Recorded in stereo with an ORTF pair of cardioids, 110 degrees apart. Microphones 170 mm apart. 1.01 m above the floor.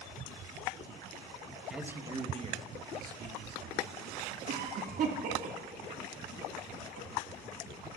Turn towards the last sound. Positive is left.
turn(degrees=-60)